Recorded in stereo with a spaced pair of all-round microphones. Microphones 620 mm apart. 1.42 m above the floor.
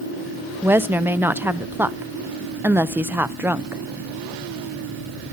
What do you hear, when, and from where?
0.6 s a woman speaking: 5° right (ahead or behind), 0.5 m